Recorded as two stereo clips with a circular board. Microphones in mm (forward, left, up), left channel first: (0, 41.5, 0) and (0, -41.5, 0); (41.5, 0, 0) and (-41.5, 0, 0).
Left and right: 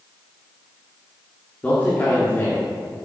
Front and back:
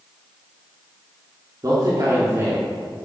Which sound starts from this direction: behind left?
A man speaking, at 1.6 s.